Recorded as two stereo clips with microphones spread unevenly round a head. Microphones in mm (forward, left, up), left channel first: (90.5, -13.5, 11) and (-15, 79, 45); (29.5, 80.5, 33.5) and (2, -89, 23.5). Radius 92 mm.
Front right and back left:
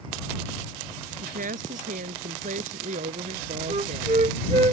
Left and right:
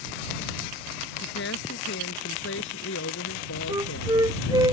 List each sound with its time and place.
1.2 s a woman speaking: 110° left; by 4.7 s 95° left
3.7 s a flute: 170° right